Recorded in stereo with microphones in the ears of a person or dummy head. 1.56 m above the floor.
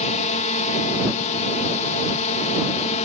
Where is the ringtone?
I don't hear a ringtone.